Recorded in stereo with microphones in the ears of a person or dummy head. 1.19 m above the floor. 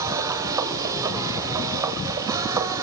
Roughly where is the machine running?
Centre.